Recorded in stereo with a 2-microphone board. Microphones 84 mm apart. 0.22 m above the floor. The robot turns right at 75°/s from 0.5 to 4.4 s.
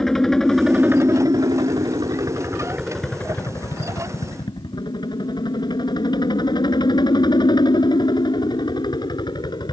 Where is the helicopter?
175° left; by 9.7 s 105° left.